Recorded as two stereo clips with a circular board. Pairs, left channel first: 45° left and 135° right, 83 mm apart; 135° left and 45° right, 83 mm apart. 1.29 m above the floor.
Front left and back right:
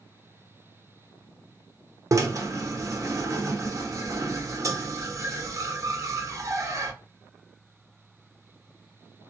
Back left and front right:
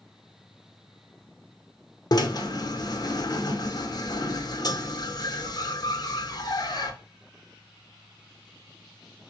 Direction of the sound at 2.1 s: 175° left.